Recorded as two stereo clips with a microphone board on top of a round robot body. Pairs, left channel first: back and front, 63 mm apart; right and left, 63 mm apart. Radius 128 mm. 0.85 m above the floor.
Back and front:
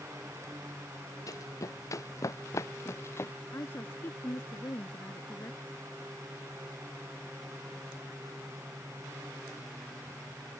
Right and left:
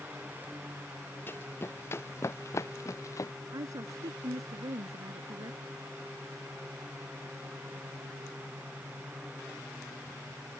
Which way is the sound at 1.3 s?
150° right.